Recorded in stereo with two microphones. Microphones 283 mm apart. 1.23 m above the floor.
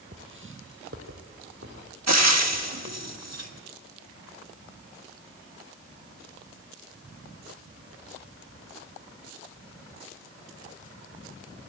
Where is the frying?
70° right (ahead or behind), 1.5 m.